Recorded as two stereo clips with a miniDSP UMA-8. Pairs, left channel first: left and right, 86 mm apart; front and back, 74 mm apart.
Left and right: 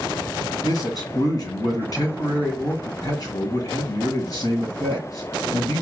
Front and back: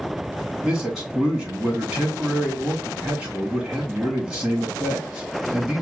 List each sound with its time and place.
0.6 s a man speaking: 100° left, 2.0 m